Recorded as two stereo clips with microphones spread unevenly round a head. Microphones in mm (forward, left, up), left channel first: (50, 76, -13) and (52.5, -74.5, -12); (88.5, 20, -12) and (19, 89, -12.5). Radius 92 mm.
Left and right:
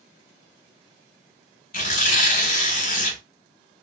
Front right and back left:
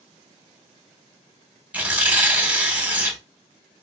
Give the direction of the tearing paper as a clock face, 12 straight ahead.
10 o'clock.